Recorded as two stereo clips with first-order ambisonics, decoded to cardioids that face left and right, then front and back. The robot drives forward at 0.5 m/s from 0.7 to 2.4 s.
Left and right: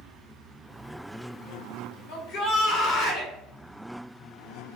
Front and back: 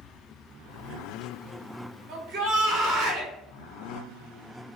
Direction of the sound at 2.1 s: 120° left.